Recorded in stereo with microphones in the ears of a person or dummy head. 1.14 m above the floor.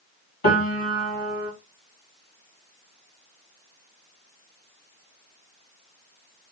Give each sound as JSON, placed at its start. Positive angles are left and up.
{"t": 0.4, "sound": "a piano", "side_deg": 45, "distance_m": 1.5}